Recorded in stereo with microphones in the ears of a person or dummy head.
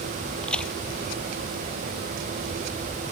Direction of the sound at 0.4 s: 5° left (ahead or behind).